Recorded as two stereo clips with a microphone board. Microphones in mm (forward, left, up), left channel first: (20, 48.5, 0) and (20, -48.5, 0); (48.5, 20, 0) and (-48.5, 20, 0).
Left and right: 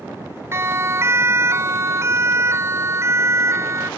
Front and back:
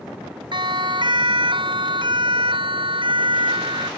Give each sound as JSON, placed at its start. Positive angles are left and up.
{"t": 0.5, "sound": "a siren", "azimuth_deg": -150}